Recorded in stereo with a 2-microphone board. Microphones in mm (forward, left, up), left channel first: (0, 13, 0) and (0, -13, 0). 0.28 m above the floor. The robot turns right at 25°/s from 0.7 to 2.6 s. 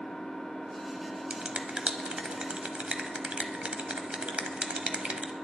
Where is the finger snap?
45° right (ahead or behind), 1.0 m.